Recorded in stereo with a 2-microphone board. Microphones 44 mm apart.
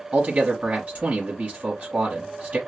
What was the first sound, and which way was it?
A man speaking, 35° right (ahead or behind).